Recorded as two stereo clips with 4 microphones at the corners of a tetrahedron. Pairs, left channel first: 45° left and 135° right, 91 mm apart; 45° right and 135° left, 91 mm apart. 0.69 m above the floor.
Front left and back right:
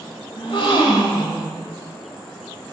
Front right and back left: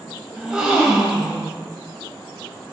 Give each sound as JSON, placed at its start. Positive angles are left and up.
{"t": 0.4, "sound": "a gasp", "azimuth_deg": 55, "distance_m": 1.5}